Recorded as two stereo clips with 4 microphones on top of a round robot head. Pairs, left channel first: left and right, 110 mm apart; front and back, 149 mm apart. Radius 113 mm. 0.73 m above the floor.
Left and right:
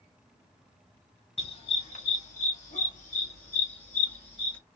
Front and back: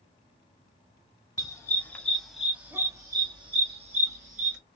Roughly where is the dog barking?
Left.